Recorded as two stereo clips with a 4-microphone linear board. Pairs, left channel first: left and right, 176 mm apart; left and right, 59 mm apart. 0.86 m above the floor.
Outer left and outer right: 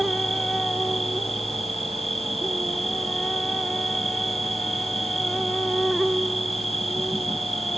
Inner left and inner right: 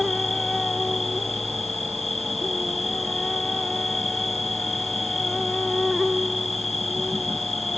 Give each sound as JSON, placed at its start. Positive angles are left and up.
{"t": 0.0, "sound": "an insect", "side_deg": 0}